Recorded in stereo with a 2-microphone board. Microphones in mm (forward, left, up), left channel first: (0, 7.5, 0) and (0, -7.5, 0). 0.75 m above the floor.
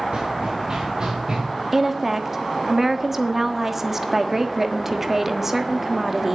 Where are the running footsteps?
55° right (ahead or behind), 3 m; by 1.4 s 35° right (ahead or behind), 3 m.